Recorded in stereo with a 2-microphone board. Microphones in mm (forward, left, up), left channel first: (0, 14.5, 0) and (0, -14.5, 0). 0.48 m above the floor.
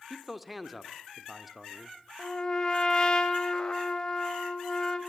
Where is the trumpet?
25° left (ahead or behind), 3 m.